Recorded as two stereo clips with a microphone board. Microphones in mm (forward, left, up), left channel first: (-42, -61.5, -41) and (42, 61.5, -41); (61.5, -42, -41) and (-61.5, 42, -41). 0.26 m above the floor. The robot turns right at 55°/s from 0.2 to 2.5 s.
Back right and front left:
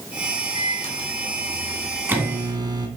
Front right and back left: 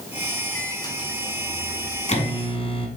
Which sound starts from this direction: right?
A microwave, at 0.6 s.